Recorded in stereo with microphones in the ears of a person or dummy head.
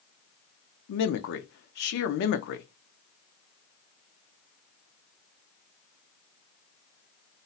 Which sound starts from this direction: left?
A man speaking, at 0.9 s.